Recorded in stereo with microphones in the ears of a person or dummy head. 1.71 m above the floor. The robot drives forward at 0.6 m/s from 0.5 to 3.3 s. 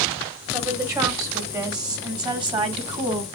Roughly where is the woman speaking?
Centre.